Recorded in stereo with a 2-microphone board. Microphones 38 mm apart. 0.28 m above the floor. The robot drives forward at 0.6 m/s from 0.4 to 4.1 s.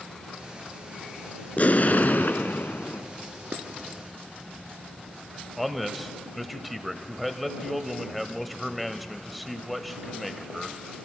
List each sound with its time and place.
1.6 s an explosion: 45° left (ahead or behind), 1.1 m; by 3.0 s 75° left (ahead or behind), 0.8 m
3.5 s dishes clattering: 45° right (ahead or behind), 2 m; by 3.6 s 50° right (ahead or behind), 2 m
5.6 s a man speaking: centre (ahead or behind), 1.0 m